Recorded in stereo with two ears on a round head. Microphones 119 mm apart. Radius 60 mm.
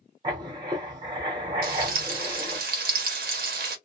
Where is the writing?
30° right (ahead or behind), 0.9 m.